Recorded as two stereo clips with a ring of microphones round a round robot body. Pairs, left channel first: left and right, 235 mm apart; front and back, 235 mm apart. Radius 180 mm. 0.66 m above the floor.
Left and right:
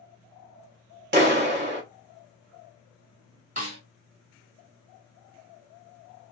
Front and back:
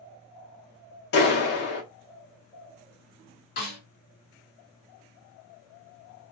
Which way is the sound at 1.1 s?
45° right.